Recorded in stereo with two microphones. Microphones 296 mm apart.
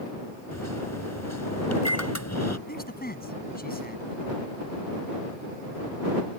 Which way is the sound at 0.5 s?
60° left (ahead or behind).